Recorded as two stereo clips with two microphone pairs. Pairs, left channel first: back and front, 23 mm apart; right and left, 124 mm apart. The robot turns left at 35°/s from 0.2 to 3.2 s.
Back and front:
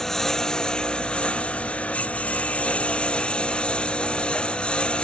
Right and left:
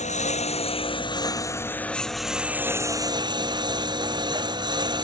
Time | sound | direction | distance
0.0 | a lawn mower | 110° right | ?